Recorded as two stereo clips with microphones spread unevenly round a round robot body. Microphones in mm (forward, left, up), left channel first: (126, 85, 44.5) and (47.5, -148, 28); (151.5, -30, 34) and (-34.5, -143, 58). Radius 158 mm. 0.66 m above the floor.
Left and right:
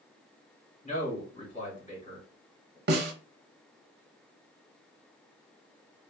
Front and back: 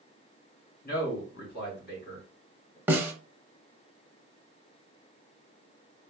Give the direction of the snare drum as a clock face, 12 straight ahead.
3 o'clock.